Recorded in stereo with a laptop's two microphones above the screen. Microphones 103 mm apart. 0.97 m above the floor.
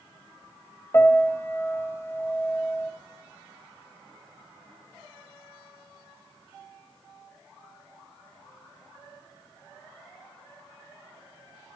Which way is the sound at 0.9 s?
25° left (ahead or behind).